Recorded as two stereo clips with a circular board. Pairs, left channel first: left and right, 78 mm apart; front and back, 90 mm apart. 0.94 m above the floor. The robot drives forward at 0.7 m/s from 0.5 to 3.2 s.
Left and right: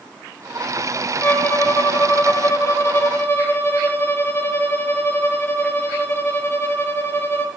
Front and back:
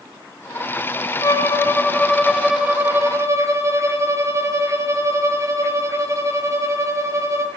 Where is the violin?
35° left, 1.2 m; by 7.5 s 135° left, 1.1 m.